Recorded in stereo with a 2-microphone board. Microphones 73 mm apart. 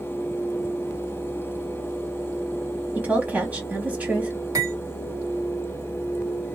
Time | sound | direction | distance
3.0 | a woman speaking | 20° right (ahead or behind) | 1.2 m
4.5 | cutlery clinking | 55° right (ahead or behind) | 1.4 m